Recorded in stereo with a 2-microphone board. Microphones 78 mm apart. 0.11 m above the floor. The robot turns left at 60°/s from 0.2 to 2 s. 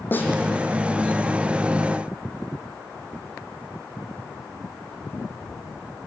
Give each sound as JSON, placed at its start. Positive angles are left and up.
{"t": 0.1, "sound": "a snare drum", "side_deg": 25, "distance_m": 3.0}